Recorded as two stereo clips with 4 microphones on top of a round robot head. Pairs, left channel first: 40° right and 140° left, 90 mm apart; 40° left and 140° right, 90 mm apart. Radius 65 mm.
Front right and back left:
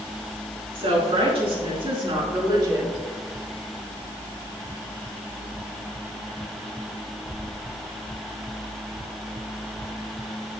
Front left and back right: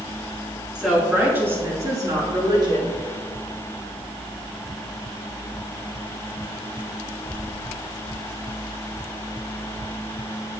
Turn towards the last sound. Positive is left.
turn(degrees=-170)